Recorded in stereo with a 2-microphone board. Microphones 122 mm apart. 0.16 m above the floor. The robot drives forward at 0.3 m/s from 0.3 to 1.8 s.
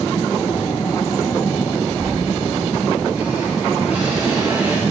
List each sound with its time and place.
2.0 s a squeak: 10° right (ahead or behind), 2.5 m